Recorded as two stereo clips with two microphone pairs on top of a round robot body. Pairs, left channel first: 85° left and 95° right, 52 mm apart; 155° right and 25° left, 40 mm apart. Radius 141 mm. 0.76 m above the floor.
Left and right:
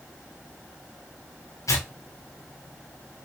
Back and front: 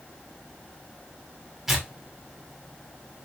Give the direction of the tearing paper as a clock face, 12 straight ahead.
8 o'clock.